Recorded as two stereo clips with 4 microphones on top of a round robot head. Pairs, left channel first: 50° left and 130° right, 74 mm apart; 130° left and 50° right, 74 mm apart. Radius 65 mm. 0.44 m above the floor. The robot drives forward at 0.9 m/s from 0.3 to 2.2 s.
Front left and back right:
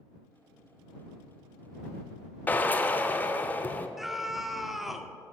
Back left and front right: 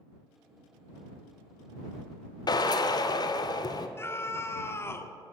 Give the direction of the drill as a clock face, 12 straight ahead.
8 o'clock.